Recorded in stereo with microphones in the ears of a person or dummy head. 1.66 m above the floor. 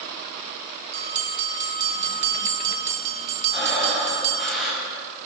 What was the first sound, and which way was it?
A bell, 40° right (ahead or behind).